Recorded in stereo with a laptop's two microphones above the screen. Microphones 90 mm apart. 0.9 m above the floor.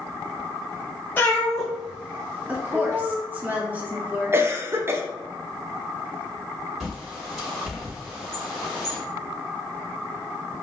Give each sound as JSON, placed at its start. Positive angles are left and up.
{"t": 1.2, "sound": "a cat meowing", "side_deg": 20, "distance_m": 0.7}
{"t": 2.5, "sound": "a woman speaking", "side_deg": -20, "distance_m": 0.7}
{"t": 4.3, "sound": "a cough", "side_deg": -25, "distance_m": 0.6}
{"t": 6.8, "sound": "a bird", "side_deg": 0, "distance_m": 1.9}